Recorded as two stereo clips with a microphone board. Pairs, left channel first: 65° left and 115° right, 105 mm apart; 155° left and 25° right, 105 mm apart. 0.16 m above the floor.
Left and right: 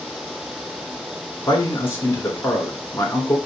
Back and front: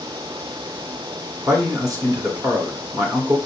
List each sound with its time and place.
1.5 s a man speaking: 15° left, 1.9 m